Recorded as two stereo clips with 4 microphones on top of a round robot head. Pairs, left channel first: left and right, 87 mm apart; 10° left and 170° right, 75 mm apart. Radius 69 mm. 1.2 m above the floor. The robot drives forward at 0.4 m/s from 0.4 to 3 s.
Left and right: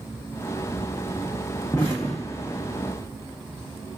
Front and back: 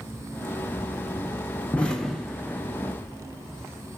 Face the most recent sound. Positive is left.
turn(degrees=150)